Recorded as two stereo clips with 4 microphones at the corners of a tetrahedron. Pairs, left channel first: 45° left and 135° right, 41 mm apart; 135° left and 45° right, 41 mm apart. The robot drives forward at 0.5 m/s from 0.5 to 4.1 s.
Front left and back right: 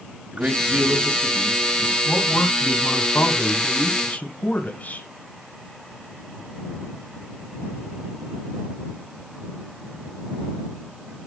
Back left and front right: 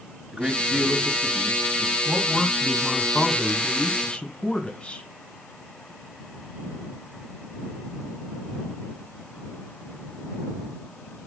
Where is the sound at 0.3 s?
100° right, 1.6 m; by 1.9 s 130° right, 1.9 m.